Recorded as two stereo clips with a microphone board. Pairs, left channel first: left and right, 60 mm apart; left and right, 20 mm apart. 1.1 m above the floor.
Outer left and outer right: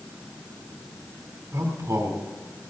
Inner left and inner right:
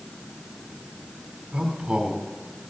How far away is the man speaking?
About 4 m.